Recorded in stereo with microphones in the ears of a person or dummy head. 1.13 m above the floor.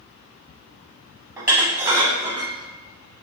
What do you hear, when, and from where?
1.4 s dishes clattering: 15° right (ahead or behind), 0.7 m